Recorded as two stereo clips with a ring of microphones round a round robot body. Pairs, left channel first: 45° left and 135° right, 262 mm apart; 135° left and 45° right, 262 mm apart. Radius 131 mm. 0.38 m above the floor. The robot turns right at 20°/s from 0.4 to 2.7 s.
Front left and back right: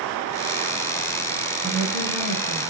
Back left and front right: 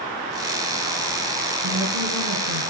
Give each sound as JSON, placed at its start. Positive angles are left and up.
{"t": 1.6, "sound": "a woman speaking", "azimuth_deg": -75, "distance_m": 3.0}